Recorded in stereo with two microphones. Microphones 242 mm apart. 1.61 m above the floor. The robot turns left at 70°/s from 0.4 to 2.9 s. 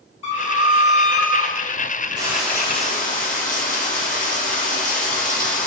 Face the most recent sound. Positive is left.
turn(degrees=145)